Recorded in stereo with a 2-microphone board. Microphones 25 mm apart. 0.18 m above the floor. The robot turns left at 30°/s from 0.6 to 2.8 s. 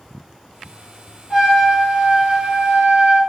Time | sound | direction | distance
1.3 | a trumpet | 15° right | 1.7 m